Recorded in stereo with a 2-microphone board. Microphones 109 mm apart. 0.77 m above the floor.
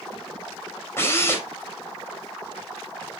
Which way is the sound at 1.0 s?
25° left (ahead or behind).